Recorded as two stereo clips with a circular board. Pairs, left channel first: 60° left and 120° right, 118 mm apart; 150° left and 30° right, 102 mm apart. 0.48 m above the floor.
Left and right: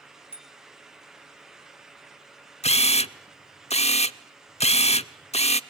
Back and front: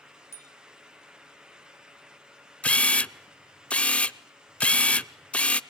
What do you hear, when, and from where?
0.3 s a bicycle bell: 90° left, 3.5 m
2.6 s a camera shutter: 75° left, 0.5 m